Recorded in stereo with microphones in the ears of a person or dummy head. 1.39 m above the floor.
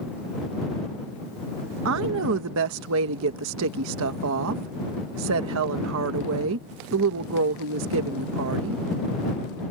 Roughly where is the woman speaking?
Right.